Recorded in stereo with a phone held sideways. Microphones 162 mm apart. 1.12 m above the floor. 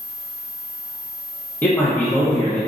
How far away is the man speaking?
About 0.9 m.